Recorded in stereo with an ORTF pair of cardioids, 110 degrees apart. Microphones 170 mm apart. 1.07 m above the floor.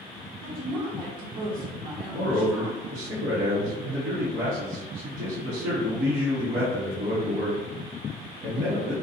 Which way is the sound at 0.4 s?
55° right.